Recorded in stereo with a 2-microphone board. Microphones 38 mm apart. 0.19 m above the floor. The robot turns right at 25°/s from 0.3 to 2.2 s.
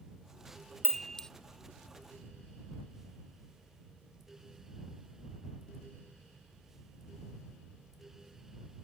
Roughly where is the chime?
Centre.